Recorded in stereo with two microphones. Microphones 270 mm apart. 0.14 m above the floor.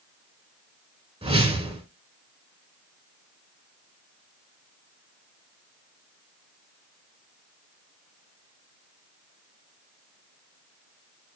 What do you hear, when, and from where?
1.2 s a whoosh: 20° right (ahead or behind), 0.7 m